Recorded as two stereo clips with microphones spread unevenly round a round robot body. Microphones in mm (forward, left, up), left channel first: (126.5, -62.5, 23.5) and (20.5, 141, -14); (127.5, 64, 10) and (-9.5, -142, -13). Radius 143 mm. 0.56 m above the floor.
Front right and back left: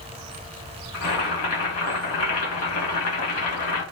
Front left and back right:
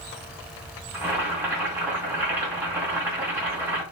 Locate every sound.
0.9 s boiling: 40° right, 2 m